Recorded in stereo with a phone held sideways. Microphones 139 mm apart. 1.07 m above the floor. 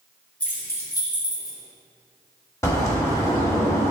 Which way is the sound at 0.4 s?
10° left (ahead or behind).